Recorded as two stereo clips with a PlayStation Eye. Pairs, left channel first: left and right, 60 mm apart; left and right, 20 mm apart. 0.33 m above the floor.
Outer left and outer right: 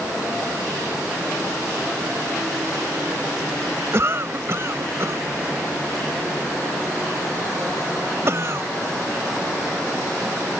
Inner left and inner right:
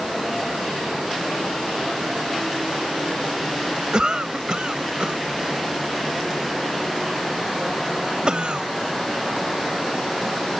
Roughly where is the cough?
Right.